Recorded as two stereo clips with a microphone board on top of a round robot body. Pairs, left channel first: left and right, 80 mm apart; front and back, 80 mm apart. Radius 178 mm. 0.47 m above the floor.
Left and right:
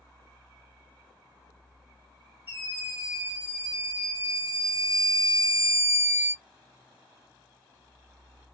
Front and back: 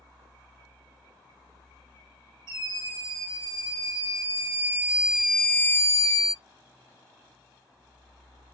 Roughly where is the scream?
Behind right.